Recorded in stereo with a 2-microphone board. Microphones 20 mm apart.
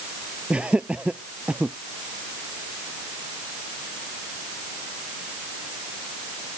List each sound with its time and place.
0.5 s laughter: 70° right (ahead or behind); by 1.8 s 65° right (ahead or behind)